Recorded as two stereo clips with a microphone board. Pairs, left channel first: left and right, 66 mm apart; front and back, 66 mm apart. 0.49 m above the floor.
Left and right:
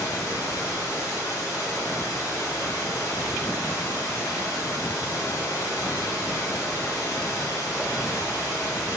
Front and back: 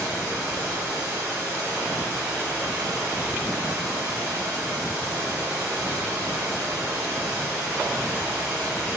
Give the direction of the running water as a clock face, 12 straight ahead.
8 o'clock.